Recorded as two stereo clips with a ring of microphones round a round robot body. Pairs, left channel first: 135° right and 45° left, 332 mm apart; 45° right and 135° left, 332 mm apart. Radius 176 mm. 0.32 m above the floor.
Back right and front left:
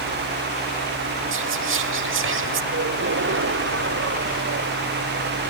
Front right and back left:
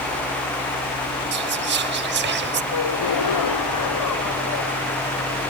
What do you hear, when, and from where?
1.3 s whispering: 85° left
2.7 s a gasp: 10° right